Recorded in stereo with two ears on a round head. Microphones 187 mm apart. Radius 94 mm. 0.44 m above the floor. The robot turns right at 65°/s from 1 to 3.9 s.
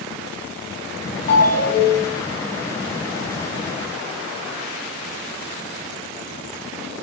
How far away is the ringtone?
About 2.5 m.